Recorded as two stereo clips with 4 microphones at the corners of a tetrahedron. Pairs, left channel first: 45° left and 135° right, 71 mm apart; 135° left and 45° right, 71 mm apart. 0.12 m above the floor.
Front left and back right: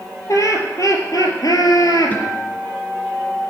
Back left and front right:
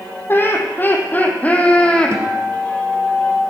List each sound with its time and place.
0.3 s laughter: 80° left, 3 m; by 2.2 s 60° left, 2.5 m
2.1 s a guitar: 10° right, 2 m